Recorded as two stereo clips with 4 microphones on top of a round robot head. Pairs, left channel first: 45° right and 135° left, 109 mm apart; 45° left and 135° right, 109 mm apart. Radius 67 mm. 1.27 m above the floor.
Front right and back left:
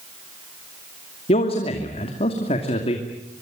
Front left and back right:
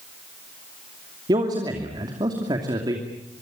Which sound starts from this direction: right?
A man speaking, at 1.3 s.